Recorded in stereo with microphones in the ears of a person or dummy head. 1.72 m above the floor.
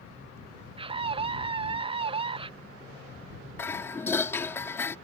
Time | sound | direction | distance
0.8 | a scream | 35° right (ahead or behind) | ?
3.6 | dishes clattering | 15° left (ahead or behind) | ?